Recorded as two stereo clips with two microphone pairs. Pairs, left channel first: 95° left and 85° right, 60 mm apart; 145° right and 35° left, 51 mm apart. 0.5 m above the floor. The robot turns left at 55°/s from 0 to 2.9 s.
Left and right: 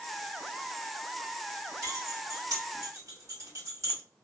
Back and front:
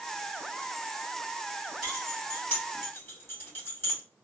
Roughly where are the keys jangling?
Ahead right.